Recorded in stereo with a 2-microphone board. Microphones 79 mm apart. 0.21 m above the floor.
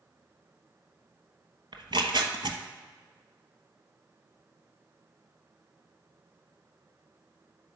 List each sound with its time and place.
1.7 s tearing paper: 80° right, 1.2 m